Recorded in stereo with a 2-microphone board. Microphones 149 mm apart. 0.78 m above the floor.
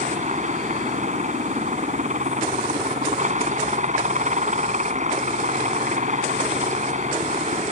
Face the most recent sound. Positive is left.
turn(degrees=-55)  # may be behind; listen again after turning